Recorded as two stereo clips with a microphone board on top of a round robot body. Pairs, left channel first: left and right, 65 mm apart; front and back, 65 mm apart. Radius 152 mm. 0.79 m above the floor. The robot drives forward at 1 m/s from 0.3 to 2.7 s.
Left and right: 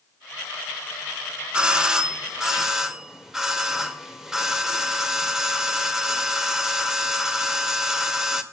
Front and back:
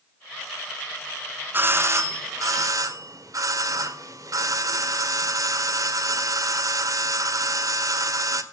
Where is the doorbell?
155° right, 1.1 m; by 8.4 s 170° right, 1.9 m.